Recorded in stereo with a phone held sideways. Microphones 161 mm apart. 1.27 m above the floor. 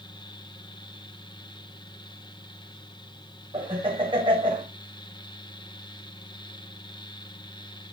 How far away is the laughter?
About 6 m.